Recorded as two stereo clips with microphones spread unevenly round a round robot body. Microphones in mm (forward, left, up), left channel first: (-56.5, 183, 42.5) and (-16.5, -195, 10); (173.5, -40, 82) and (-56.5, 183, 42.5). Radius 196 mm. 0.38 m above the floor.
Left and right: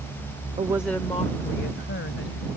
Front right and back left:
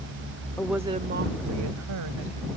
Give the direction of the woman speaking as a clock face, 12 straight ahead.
4 o'clock.